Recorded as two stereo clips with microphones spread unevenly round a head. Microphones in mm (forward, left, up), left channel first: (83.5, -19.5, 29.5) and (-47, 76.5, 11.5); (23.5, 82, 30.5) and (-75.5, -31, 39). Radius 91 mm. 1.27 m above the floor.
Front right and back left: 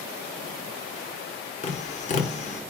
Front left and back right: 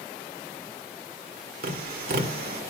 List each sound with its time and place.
1.6 s tapping: 90° right, 1.1 m